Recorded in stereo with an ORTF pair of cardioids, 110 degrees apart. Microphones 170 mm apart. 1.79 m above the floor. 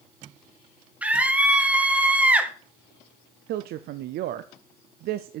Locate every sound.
1.0 s a scream: 5° right, 2 m
3.5 s a woman speaking: 70° right, 0.7 m